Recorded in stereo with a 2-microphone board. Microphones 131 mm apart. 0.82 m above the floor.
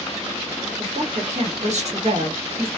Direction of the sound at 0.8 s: 65° right (ahead or behind).